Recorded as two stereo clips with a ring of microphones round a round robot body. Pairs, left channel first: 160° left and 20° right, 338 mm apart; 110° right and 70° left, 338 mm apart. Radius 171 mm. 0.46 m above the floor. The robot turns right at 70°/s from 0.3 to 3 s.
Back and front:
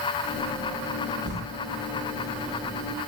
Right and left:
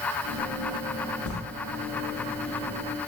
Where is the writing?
80° right, 0.6 m; by 1.4 s 75° right, 0.6 m.